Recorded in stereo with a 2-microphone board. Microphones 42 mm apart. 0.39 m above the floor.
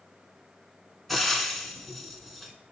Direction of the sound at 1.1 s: Centre (ahead or behind).